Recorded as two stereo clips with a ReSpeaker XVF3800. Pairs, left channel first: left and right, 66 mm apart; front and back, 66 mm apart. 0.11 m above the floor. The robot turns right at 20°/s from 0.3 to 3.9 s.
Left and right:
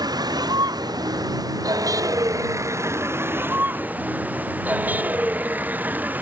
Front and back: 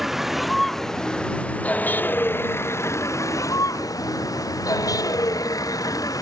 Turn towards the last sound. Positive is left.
turn(degrees=-25)